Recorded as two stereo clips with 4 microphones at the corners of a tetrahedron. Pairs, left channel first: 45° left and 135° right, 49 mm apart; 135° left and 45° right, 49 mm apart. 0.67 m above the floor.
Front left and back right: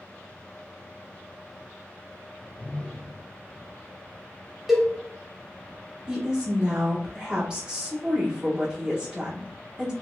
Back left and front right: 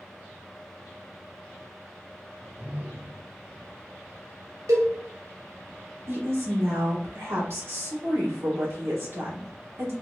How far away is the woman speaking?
About 1.6 m.